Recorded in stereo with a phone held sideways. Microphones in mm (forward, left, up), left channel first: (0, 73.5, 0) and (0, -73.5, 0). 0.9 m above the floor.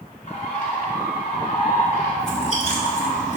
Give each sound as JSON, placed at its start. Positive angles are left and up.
{"t": 0.3, "sound": "a bird", "side_deg": 55, "distance_m": 1.9}
{"t": 2.2, "sound": "chewing", "side_deg": 50, "distance_m": 1.8}